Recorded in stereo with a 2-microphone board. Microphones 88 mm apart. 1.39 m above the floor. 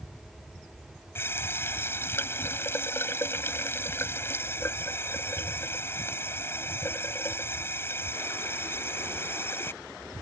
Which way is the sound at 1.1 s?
25° left (ahead or behind).